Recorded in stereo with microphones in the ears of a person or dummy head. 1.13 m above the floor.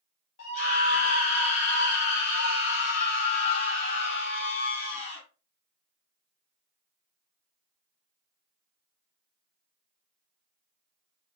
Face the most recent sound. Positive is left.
turn(degrees=35)  # may be behind; listen again after turning